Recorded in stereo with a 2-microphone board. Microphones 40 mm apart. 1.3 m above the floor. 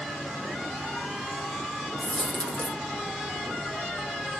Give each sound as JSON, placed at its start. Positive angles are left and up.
{"t": 2.0, "sound": "a dropped coin", "side_deg": 35, "distance_m": 0.9}